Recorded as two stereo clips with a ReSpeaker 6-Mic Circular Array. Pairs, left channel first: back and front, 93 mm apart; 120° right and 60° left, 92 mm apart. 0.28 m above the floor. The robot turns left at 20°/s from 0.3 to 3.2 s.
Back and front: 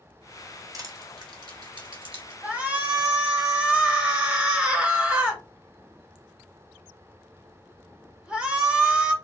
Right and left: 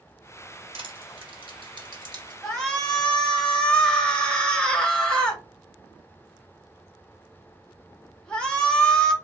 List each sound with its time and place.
0.7 s crushing: 50° left, 1.2 m; by 2.3 s 20° left, 1.2 m
2.4 s a shout: 45° right, 0.9 m; by 9.1 s 60° right, 0.9 m